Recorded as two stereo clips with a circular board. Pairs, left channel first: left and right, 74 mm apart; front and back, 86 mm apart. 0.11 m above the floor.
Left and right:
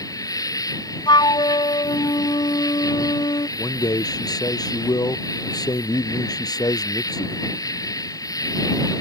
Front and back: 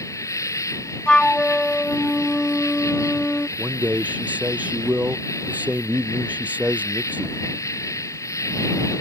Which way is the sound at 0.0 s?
50° left.